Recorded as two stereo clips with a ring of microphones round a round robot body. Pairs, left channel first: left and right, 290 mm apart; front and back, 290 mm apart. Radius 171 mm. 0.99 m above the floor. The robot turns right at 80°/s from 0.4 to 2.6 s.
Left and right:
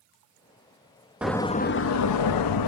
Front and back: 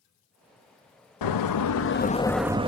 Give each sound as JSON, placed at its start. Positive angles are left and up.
{"t": 1.2, "sound": "a door slam", "azimuth_deg": -5, "distance_m": 0.9}